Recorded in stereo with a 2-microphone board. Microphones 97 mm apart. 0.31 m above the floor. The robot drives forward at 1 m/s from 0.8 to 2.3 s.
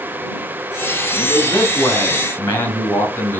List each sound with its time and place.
1.1 s a man speaking: 35° left (ahead or behind), 3 m; by 3.4 s 25° left (ahead or behind), 3.5 m